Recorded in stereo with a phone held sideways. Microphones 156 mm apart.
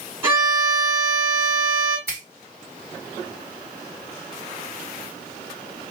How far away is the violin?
About 1.8 m.